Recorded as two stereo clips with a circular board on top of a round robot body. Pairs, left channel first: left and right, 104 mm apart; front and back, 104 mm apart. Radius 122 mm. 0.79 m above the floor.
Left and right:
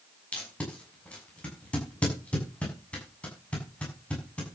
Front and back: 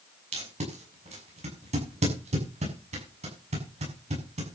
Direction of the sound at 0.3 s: 170° left.